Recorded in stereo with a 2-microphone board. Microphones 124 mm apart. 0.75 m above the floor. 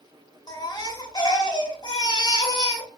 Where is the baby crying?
35° left (ahead or behind), 0.7 m.